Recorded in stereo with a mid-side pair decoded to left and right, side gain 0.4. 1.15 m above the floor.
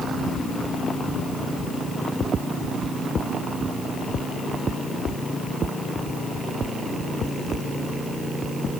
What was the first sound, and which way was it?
Only background noise.